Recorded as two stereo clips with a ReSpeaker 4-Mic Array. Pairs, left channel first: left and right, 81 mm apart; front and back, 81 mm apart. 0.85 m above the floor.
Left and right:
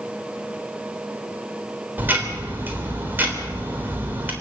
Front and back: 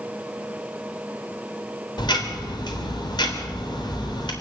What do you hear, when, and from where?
2.0 s ticking: 25° right, 3.5 m